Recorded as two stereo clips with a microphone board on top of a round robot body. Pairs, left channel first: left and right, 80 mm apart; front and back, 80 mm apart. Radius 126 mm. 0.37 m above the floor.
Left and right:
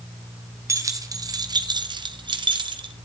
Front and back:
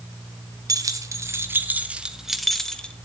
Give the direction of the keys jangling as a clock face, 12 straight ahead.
5 o'clock.